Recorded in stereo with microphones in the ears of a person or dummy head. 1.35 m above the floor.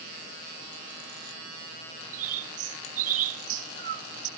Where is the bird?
45° right (ahead or behind), 1.7 m.